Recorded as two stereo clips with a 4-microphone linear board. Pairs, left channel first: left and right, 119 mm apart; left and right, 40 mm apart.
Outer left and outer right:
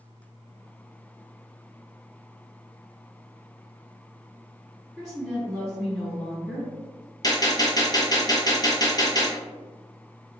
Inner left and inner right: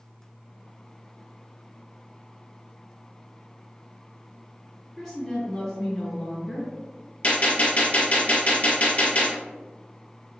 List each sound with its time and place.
5.0 s a woman speaking: centre (ahead or behind), 1.8 m
7.2 s a gunshot: 35° left (ahead or behind), 1.0 m